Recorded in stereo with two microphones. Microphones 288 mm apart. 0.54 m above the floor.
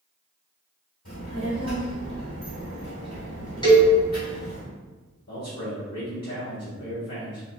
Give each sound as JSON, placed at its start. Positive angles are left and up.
{"t": 1.1, "sound": "a child speaking", "side_deg": 65, "distance_m": 1.9}
{"t": 3.6, "sound": "a cowbell", "side_deg": 15, "distance_m": 1.4}
{"t": 5.3, "sound": "a man speaking", "side_deg": 65, "distance_m": 1.6}